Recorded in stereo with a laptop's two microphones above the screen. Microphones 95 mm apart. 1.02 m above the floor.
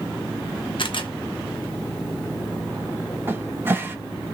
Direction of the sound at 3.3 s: 25° right (ahead or behind).